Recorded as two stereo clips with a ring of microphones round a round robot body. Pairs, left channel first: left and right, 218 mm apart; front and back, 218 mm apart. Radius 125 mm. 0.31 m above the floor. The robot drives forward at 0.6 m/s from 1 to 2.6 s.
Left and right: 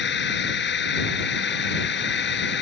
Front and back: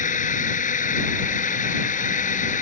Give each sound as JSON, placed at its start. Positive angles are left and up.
{"t": 0.0, "sound": "a drone", "azimuth_deg": 55}